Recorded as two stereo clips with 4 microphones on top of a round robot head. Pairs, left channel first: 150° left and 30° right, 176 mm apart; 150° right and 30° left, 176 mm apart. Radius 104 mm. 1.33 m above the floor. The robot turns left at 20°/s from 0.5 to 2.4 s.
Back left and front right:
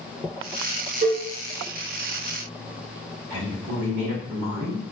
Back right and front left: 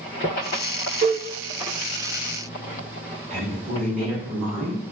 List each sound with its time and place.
1.0 s a cowbell: 10° left, 0.9 m; by 1.3 s 5° left, 0.9 m
3.3 s a woman speaking: 15° right, 1.8 m